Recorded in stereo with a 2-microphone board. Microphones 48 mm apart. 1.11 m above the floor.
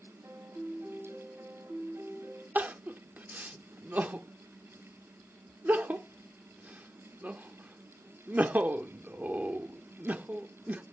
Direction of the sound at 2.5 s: 40° right (ahead or behind).